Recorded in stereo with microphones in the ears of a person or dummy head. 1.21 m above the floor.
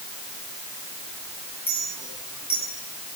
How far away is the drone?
I don't hear a drone.